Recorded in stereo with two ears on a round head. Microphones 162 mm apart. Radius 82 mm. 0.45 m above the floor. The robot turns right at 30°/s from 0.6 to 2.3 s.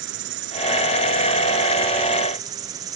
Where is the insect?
70° right; by 3.0 s 20° right.